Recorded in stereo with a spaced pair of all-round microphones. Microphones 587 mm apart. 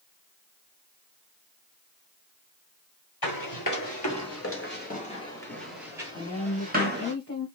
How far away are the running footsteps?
About 1.8 m.